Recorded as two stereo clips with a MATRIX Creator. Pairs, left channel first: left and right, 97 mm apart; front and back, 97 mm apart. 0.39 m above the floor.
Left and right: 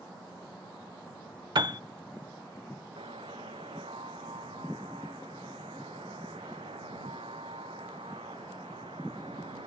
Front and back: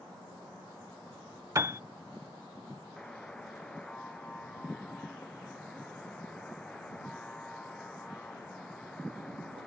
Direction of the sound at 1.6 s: 125° right.